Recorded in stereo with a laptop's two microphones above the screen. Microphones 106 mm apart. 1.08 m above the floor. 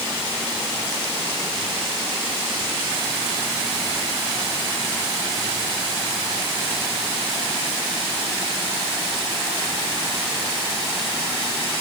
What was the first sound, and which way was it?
Only background noise.